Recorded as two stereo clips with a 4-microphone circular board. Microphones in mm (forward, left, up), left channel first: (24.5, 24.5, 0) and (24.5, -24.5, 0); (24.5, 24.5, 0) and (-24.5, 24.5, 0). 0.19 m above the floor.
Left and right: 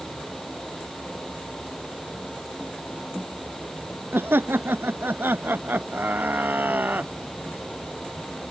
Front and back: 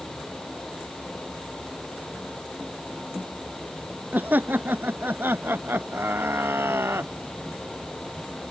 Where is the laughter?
130° right; by 7.1 s 145° right.